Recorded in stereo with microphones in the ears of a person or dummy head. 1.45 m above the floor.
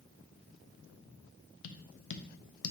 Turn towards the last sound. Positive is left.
turn(degrees=70)  # may be behind; listen again after turning